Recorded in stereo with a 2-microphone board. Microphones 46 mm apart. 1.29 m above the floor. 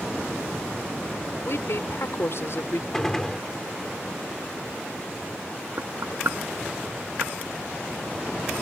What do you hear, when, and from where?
1.4 s a woman speaking: 65° left (ahead or behind)
2.9 s a gunshot: 10° left (ahead or behind)
5.8 s knocking: 70° right (ahead or behind)